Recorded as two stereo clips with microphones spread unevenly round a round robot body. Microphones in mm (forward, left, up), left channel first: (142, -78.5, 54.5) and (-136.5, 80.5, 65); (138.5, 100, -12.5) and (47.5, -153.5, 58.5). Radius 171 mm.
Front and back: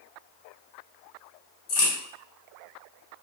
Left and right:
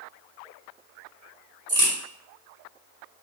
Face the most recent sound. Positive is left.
turn(degrees=-60)